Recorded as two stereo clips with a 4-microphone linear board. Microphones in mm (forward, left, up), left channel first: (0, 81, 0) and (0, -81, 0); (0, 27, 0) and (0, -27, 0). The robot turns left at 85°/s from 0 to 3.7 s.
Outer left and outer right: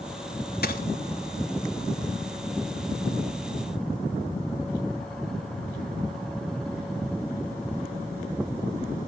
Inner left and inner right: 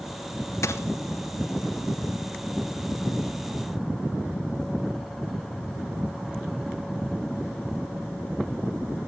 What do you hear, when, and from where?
0.6 s a dropped coin: 80° left, 0.8 m; by 0.8 s 65° left (ahead or behind), 0.8 m